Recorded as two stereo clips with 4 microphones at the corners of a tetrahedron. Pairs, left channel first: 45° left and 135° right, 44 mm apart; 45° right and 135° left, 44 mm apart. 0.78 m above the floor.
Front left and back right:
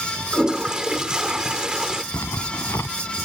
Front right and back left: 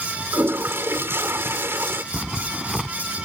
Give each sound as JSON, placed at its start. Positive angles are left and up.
{"t": 0.3, "sound": "a toilet flushing", "azimuth_deg": 155}
{"t": 2.1, "sound": "a zipper", "azimuth_deg": 55}